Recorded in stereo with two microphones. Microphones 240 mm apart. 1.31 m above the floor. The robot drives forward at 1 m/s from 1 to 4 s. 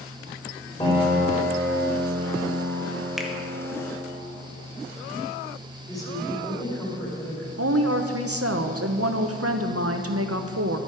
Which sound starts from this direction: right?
A woman speaking, at 7.6 s.